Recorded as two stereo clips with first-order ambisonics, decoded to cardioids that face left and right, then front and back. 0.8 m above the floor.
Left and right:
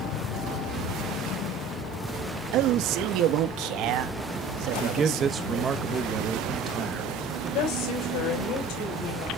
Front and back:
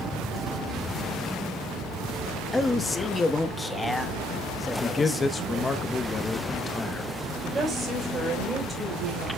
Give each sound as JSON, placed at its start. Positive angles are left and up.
{"t": 2.5, "sound": "a man speaking", "azimuth_deg": -80, "distance_m": 1.1}
{"t": 4.8, "sound": "a man speaking", "azimuth_deg": -55, "distance_m": 0.8}
{"t": 7.5, "sound": "a woman speaking", "azimuth_deg": 105, "distance_m": 4.5}